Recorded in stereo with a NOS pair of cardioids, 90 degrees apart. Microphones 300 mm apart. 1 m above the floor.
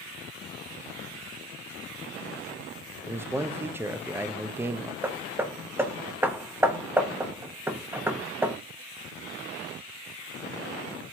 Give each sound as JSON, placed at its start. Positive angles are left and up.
{"t": 3.0, "sound": "a man speaking", "azimuth_deg": -10, "distance_m": 0.6}
{"t": 5.0, "sound": "hammering", "azimuth_deg": -10, "distance_m": 1.0}